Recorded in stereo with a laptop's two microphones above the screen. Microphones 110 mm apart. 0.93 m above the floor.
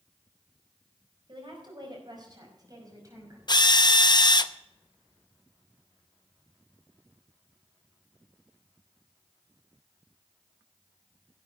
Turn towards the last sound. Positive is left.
turn(degrees=40)  # may be behind; listen again after turning